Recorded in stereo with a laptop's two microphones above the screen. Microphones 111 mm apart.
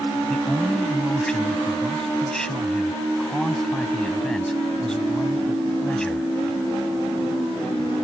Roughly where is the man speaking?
Centre.